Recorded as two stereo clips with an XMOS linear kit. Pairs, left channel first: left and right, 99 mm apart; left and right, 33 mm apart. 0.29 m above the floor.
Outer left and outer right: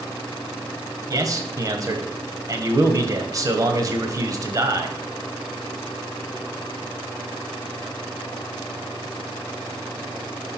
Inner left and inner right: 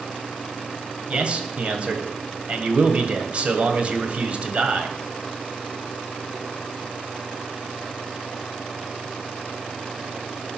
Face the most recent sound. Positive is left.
turn(degrees=-35)  # may be behind; listen again after turning